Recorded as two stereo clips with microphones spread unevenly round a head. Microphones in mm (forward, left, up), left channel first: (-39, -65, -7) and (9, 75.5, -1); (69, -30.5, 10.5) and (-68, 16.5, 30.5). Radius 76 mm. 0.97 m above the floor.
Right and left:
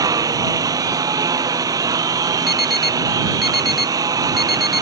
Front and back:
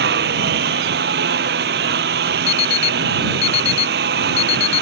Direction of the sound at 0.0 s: 140° left.